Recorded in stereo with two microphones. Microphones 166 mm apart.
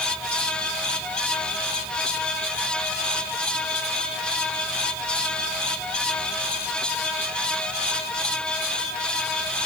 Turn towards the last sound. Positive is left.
No sound to turn to.